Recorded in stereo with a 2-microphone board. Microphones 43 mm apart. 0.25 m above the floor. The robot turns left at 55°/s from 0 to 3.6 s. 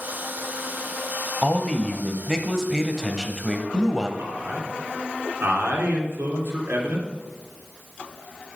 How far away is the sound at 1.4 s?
About 0.9 m.